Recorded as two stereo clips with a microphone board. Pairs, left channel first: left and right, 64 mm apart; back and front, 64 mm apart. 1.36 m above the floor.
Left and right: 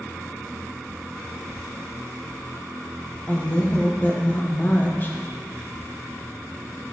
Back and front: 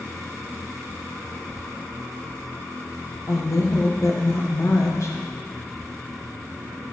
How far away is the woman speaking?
About 1.1 m.